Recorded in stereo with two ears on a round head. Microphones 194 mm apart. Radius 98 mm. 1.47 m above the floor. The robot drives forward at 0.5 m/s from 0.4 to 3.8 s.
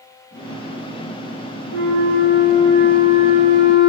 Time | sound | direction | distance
1.7 | a flute | 80° right | 5 m